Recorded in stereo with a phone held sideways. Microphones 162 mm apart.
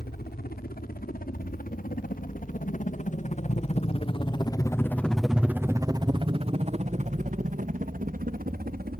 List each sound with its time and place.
0.0 s a helicopter: 75° left (ahead or behind); by 9.0 s 70° right (ahead or behind)